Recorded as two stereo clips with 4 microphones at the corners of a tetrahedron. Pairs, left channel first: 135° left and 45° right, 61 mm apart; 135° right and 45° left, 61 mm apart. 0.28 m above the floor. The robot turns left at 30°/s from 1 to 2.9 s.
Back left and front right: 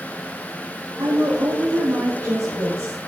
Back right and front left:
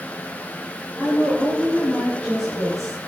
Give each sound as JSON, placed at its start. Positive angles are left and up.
{"t": 1.0, "sound": "a woman speaking", "azimuth_deg": -50, "distance_m": 4.5}